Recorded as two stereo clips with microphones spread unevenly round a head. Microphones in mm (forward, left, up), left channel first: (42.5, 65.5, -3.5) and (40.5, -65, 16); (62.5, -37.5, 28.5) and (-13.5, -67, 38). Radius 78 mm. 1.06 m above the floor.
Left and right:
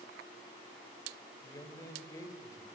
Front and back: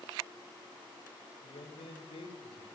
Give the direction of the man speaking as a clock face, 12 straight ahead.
11 o'clock.